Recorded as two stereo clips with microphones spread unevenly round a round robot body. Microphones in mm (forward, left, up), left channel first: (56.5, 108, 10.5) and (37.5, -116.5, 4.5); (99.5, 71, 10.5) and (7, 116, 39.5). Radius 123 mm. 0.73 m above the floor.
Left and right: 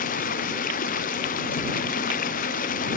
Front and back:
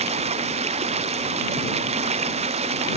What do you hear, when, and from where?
0.0 s running water: 145° left